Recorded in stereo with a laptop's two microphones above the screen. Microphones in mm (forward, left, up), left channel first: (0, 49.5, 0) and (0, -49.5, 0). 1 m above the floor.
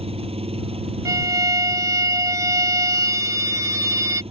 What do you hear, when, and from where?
0.0 s an engine running: 70° right (ahead or behind)
1.1 s a violin: 35° right (ahead or behind)